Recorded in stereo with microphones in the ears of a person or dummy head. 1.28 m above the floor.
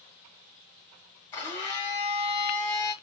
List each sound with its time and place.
1.3 s a blender: 15° left (ahead or behind), 0.9 m